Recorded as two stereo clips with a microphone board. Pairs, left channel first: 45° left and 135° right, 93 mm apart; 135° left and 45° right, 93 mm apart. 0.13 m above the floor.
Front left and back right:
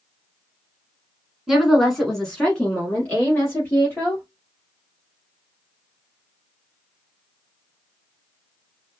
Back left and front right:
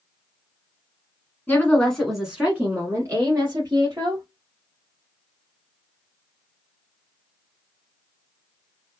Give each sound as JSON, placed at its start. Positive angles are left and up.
{"t": 1.5, "sound": "a woman speaking", "azimuth_deg": 140, "distance_m": 1.3}